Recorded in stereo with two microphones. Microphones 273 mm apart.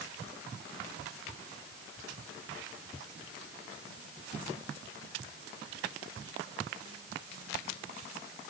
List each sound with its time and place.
Only background noise.